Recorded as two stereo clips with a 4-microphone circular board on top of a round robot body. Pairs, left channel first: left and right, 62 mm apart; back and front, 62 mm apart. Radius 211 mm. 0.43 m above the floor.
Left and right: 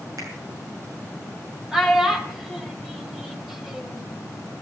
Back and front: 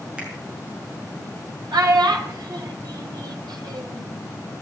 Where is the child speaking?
5° right, 2 m.